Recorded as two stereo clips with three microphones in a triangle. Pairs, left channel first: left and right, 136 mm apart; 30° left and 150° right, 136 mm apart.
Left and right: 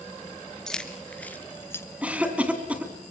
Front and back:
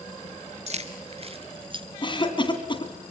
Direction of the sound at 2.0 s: 10° right.